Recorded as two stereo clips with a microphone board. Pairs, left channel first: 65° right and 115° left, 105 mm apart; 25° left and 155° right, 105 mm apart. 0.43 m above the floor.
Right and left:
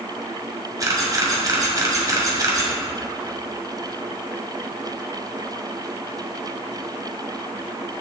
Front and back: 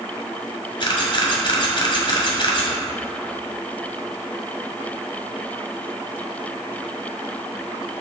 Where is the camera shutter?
60° left, 1.7 m.